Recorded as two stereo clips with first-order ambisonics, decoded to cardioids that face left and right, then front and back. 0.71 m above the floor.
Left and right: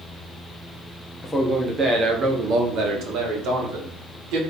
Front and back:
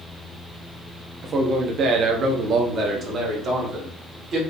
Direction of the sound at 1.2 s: 165° left.